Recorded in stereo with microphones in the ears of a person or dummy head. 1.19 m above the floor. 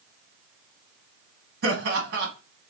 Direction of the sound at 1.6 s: 60° right (ahead or behind).